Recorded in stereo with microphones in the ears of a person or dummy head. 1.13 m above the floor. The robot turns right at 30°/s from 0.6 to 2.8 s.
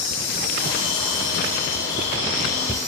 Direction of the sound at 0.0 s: 90° left.